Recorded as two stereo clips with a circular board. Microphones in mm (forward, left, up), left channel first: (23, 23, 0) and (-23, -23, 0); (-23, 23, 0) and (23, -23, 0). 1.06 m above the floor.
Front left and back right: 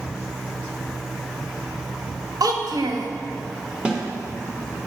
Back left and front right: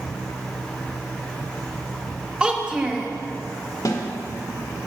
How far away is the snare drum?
About 1.4 m.